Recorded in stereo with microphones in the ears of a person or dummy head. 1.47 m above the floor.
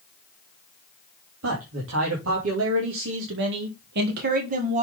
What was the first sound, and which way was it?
A man speaking, 85° right.